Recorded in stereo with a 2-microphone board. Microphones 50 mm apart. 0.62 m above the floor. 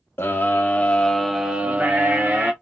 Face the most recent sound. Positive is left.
turn(degrees=-50)  # may be behind; listen again after turning